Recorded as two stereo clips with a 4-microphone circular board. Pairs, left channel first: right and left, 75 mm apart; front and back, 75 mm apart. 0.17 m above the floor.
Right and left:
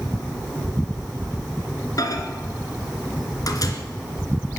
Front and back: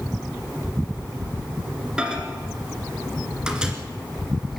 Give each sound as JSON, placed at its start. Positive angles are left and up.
{"t": 2.0, "sound": "a microwave", "azimuth_deg": -105, "distance_m": 2.0}